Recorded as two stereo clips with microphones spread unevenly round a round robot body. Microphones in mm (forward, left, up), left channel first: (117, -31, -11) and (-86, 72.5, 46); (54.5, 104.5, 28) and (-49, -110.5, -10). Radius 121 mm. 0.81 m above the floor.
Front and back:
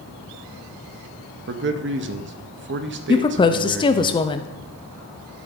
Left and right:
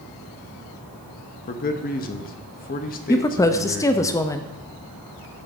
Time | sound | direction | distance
1.5 | a man speaking | 115° left | 0.9 m
3.1 | a woman speaking | 20° right | 0.5 m